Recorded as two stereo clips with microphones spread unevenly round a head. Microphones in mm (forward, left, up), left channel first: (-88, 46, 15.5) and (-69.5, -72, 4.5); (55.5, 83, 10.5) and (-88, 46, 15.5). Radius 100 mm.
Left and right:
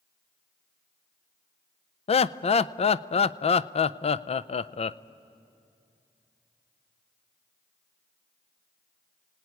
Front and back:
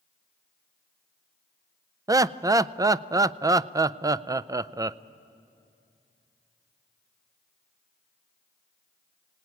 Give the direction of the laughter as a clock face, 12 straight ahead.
8 o'clock.